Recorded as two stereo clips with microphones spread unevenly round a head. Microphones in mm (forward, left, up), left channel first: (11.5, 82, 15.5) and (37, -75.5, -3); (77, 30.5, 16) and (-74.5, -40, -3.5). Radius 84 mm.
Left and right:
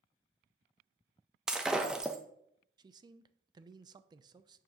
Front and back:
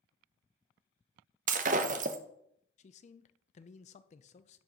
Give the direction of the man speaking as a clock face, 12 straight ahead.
12 o'clock.